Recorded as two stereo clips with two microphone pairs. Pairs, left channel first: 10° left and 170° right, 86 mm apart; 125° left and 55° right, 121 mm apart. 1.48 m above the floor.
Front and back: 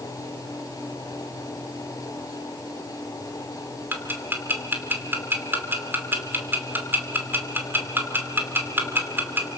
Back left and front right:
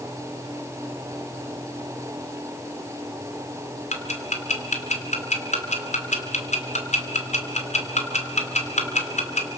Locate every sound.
3.9 s ticking: 125° left, 2.5 m